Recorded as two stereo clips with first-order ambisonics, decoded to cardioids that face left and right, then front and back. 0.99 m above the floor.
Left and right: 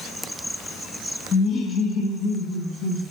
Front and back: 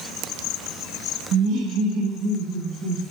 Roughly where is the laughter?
Behind left.